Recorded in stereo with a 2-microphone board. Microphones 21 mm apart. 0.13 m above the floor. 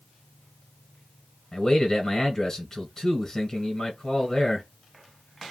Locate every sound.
1.5 s a man speaking: 25° left (ahead or behind), 1.4 m